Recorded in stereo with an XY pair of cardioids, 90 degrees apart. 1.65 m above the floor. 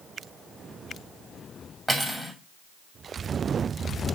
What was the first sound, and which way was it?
Cutlery clinking, 15° right.